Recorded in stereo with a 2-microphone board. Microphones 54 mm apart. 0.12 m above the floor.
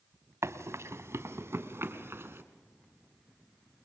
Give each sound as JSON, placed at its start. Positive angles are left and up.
{"t": 0.4, "sound": "running footsteps", "side_deg": -55, "distance_m": 1.5}